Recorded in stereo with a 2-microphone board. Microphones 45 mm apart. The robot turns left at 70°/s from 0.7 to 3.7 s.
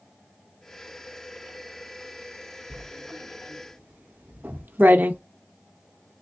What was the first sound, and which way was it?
Writing, 55° right (ahead or behind).